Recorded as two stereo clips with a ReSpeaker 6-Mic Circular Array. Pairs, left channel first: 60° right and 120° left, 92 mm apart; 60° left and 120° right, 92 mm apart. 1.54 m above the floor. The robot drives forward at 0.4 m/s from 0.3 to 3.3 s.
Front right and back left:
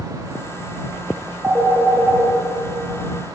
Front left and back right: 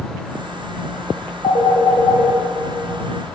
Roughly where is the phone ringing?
Ahead left.